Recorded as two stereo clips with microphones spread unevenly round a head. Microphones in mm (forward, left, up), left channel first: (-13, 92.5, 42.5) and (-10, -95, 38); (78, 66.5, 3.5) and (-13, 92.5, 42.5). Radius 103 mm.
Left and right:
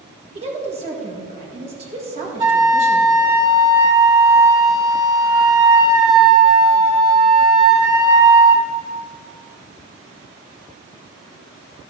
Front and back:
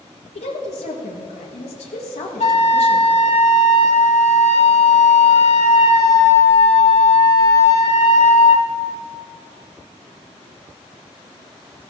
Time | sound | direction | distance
0.3 | a woman speaking | 30° right | 1.7 m
2.4 | a flute | 20° right | 1.1 m